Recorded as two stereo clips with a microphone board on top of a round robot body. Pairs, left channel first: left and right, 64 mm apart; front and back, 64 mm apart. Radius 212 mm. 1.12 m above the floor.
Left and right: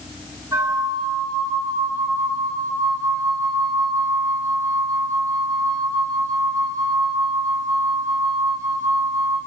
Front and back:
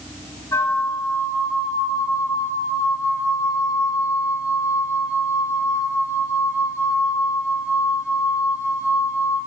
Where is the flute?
45° right, 7.5 m.